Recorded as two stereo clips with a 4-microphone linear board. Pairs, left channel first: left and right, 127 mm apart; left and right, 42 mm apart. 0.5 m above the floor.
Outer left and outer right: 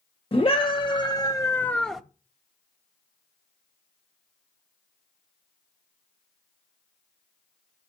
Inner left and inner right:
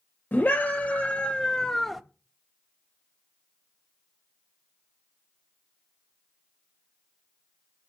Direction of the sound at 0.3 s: 45° left (ahead or behind).